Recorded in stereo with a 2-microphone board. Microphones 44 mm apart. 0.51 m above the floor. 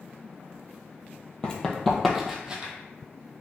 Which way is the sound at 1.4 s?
20° left (ahead or behind).